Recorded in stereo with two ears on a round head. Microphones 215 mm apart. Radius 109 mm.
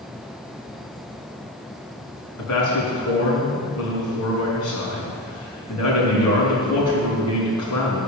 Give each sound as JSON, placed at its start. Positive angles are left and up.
{"t": 2.4, "sound": "a man speaking", "side_deg": 65, "distance_m": 5.0}